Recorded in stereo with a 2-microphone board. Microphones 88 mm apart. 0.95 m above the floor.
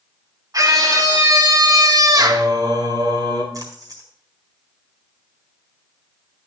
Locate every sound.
0.5 s a scream: 45° right (ahead or behind), 2.5 m
2.2 s singing: 50° right (ahead or behind), 3.5 m
3.5 s a splash: 45° right (ahead or behind), 4 m